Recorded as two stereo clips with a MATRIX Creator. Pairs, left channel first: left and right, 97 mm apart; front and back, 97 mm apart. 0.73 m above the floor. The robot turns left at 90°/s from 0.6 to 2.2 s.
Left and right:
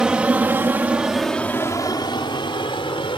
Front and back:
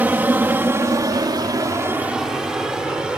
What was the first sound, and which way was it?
An aircraft, 155° right.